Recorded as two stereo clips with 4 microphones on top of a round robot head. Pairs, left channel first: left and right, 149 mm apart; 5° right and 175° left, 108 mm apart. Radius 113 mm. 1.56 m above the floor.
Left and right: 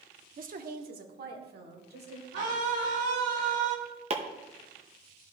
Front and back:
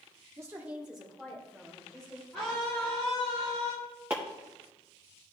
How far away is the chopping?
About 0.7 m.